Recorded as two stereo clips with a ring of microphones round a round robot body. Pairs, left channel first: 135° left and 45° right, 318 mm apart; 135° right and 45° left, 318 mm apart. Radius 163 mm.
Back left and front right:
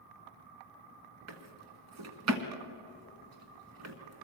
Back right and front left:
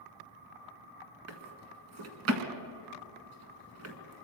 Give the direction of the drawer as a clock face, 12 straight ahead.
12 o'clock.